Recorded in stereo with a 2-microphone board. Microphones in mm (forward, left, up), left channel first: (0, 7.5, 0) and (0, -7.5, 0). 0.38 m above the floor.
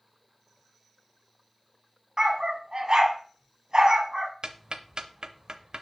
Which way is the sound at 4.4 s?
50° right (ahead or behind).